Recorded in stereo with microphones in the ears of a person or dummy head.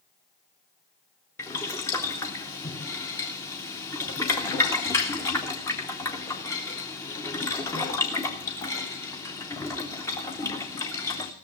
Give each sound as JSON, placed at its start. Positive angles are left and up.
{"t": 1.4, "sound": "boiling", "side_deg": 15, "distance_m": 0.8}